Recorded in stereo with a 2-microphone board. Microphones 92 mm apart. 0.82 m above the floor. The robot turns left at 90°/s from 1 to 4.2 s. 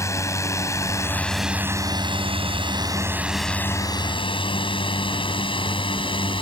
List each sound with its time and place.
0.0 s a drone: 35° left (ahead or behind); by 6.4 s 70° left (ahead or behind)